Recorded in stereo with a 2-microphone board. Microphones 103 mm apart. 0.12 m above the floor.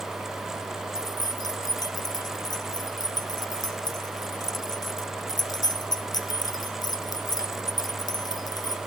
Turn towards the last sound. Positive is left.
turn(degrees=40)  # may be behind; listen again after turning